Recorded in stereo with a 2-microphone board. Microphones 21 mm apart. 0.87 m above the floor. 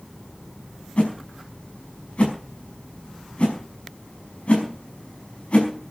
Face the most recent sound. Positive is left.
turn(degrees=85)